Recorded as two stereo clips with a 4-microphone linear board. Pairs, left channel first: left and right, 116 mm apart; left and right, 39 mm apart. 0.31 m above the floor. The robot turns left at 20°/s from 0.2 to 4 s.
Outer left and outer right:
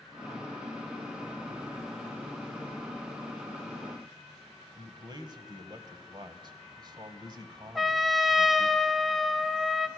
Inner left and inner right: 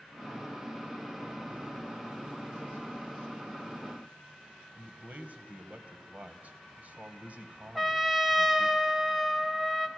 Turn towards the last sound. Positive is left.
turn(degrees=0)  # may be behind; listen again after turning